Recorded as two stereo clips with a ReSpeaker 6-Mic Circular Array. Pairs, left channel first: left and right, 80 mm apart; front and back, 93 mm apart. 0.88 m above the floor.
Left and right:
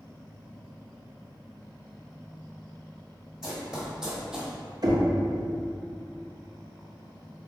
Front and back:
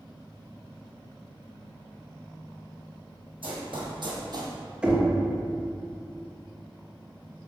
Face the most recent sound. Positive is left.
turn(degrees=-105)